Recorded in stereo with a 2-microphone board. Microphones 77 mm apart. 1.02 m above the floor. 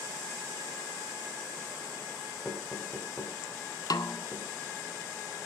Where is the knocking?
5° left (ahead or behind), 5 m.